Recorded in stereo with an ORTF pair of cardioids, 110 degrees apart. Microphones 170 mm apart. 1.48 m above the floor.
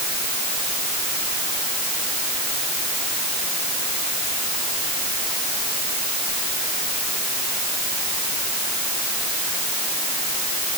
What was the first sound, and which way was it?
Only background noise.